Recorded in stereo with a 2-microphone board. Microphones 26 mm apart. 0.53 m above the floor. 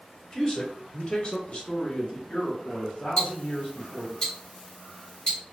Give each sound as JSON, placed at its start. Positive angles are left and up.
{"t": 0.3, "sound": "a man speaking", "side_deg": 25, "distance_m": 1.3}
{"t": 3.2, "sound": "ticking", "side_deg": 30, "distance_m": 1.7}